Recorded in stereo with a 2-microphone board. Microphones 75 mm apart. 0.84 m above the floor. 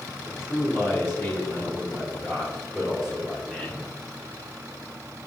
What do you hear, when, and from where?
0.2 s a man speaking: 30° left (ahead or behind), 3 m; by 3.9 s centre (ahead or behind), 3.5 m